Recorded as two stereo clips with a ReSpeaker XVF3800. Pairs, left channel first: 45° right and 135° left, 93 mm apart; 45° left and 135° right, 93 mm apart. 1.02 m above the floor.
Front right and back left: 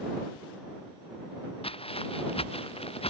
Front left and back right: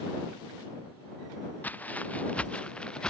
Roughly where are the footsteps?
Ahead right.